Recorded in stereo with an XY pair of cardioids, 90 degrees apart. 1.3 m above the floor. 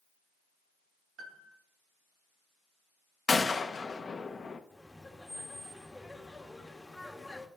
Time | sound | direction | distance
1.2 | a piano | 65° right | 1.8 m
3.3 | a gunshot | 35° left | 1.3 m
4.7 | laughter | 15° left | 2 m